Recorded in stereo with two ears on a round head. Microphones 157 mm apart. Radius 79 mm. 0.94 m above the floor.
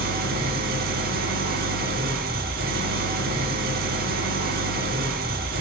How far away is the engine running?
About 1.7 m.